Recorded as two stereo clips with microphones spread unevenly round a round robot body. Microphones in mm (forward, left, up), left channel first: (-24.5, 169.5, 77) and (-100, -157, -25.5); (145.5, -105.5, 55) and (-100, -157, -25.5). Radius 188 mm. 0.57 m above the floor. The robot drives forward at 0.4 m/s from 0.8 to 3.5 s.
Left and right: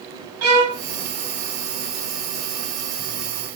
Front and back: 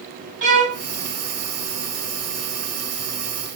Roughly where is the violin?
Behind right.